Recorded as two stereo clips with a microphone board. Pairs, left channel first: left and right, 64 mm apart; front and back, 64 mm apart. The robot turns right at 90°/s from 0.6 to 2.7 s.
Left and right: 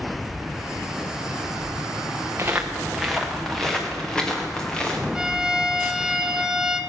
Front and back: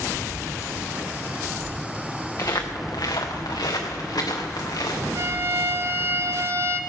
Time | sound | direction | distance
2.4 | footsteps | 35° right | 2 m
5.2 | a violin | 165° right | 0.7 m